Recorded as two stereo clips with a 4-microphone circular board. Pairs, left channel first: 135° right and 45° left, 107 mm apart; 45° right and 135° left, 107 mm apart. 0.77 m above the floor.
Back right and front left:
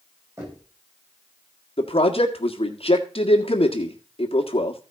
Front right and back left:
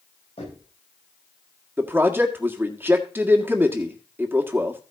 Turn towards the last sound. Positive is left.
turn(degrees=-155)